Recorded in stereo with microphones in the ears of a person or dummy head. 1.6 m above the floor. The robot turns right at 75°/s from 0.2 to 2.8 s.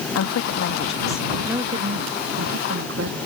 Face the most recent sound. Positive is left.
turn(degrees=-65)